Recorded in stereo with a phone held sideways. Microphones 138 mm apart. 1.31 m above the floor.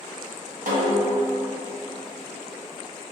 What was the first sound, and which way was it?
A snare drum, 70° right (ahead or behind).